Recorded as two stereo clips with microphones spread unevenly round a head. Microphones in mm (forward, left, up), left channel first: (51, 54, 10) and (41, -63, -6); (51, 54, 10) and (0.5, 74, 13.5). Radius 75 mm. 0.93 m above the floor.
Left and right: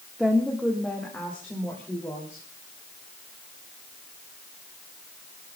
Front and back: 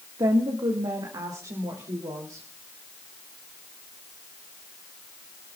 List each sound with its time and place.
0.2 s a woman speaking: straight behind, 1.6 m; by 2.5 s 160° left, 3 m